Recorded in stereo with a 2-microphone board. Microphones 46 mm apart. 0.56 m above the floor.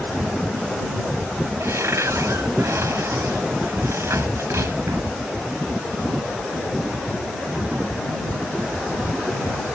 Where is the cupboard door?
75° right (ahead or behind).